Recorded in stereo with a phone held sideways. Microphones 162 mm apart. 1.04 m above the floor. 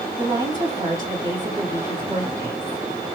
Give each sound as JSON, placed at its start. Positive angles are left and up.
{"t": 0.2, "sound": "a woman speaking", "side_deg": -20, "distance_m": 2.0}